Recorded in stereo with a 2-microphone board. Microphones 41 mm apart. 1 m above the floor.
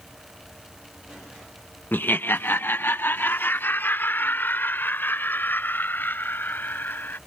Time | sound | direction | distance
1.9 | laughter | 60° left (ahead or behind) | ?